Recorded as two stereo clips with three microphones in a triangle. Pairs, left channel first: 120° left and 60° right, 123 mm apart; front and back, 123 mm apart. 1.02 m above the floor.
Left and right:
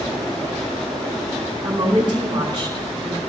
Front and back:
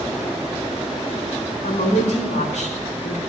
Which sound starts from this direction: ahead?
A woman speaking, at 1.6 s.